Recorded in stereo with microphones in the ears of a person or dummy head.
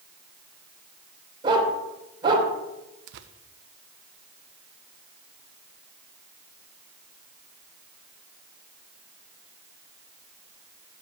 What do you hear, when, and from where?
1.4 s a dog barking: 15° right (ahead or behind), 2.5 m
3.1 s tearing paper: 65° right (ahead or behind), 0.6 m